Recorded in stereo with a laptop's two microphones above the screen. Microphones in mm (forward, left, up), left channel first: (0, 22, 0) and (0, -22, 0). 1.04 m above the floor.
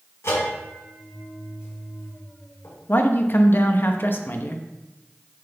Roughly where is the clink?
No clink in this recording.